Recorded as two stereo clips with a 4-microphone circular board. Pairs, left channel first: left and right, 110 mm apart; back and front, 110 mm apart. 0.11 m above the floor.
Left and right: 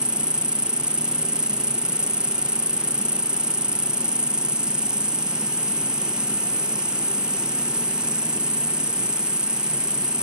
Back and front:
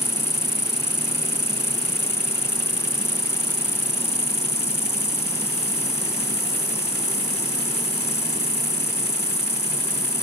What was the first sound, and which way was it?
An insect, 170° right.